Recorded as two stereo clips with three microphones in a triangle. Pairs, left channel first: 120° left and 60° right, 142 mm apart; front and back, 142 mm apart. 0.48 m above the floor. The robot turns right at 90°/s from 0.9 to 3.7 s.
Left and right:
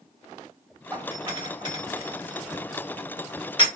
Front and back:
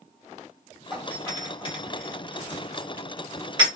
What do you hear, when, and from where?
0.9 s a doorbell: 95° right, 1.4 m; by 3.7 s 155° left, 1.4 m